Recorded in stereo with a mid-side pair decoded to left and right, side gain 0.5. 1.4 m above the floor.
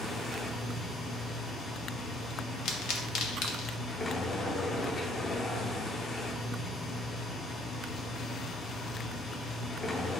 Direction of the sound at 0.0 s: 30° left.